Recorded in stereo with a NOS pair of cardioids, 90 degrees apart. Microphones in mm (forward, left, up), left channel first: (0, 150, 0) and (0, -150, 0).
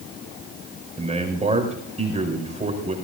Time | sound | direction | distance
1.0 | a man speaking | 20° right | 6 m